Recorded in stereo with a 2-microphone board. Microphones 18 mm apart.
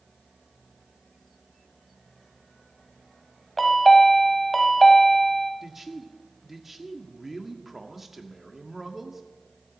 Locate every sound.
3.6 s a chime: 10° left (ahead or behind), 1.6 m
5.6 s a man speaking: 10° right (ahead or behind), 1.6 m